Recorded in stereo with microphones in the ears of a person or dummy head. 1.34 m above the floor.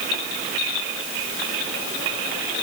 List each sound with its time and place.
Only background noise.